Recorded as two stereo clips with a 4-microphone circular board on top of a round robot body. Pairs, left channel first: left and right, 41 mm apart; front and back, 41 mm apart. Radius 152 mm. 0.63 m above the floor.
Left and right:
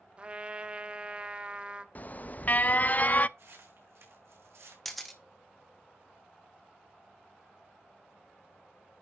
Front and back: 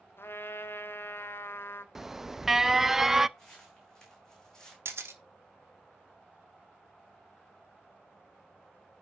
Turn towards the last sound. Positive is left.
turn(degrees=180)